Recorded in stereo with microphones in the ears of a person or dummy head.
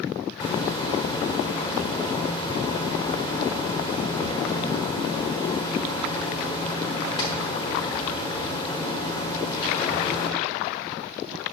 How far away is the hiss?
About 1.3 m.